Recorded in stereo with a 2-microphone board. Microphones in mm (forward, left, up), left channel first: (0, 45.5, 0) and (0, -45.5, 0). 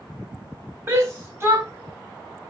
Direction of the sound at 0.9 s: 30° right (ahead or behind).